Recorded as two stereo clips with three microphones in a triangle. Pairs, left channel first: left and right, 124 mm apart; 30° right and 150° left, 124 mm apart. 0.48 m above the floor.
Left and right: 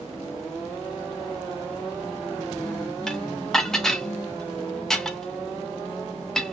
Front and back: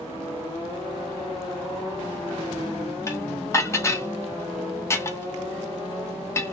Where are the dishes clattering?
10° left, 0.5 m.